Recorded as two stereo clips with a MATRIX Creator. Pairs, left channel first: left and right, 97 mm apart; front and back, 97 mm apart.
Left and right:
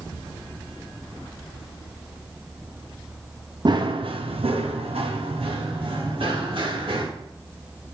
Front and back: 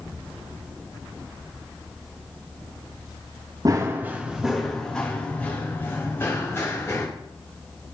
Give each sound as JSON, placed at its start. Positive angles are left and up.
{"t": 3.6, "sound": "running footsteps", "azimuth_deg": -130, "distance_m": 1.0}